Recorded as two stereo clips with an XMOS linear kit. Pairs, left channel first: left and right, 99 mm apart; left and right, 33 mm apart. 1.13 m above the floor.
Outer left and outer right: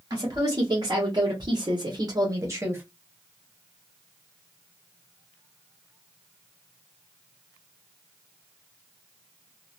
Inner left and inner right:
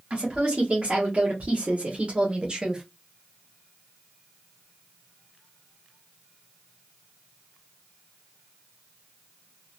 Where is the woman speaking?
35° right (ahead or behind), 1.5 m; by 2.8 s 20° right (ahead or behind), 0.9 m.